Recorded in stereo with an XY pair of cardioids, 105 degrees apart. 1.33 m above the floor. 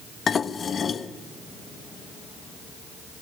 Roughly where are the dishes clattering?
Ahead left.